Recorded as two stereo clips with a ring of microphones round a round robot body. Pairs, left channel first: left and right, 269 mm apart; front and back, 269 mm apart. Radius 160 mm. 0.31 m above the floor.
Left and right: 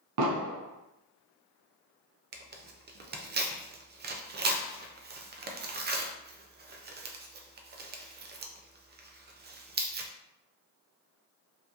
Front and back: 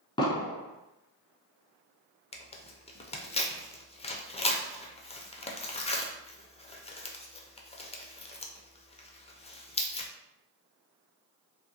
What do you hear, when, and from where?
0.2 s an explosion: 75° right, 0.6 m
2.3 s tearing paper: 60° right, 0.5 m